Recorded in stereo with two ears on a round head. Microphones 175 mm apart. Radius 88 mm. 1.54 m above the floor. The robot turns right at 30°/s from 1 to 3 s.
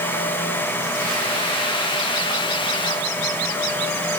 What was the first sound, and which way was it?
Only background noise.